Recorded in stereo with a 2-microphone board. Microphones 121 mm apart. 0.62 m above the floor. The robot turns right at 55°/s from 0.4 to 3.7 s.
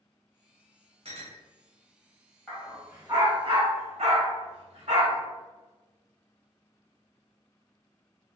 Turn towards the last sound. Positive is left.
turn(degrees=-60)  # may be behind; listen again after turning